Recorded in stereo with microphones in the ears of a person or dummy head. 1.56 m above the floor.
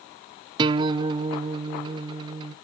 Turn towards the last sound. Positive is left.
turn(degrees=-30)  # may be behind; listen again after turning